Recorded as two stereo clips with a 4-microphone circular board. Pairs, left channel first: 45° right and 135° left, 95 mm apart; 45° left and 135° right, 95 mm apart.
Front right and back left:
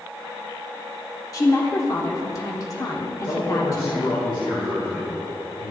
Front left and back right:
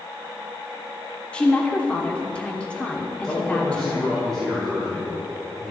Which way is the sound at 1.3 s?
25° right.